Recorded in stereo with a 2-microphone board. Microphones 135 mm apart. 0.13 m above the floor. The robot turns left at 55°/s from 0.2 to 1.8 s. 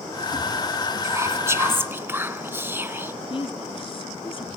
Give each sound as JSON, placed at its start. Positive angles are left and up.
{"t": 1.0, "sound": "whispering", "side_deg": -20, "distance_m": 1.1}
{"t": 3.3, "sound": "a woman speaking", "side_deg": 40, "distance_m": 1.5}